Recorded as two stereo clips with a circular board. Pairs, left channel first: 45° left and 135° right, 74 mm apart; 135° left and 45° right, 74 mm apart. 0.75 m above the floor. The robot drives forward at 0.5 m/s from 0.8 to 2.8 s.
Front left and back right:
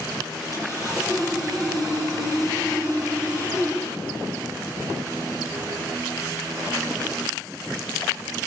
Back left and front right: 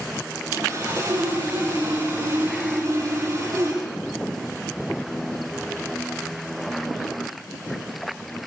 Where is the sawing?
90° right, 7.5 m; by 3.8 s 95° right, 8 m.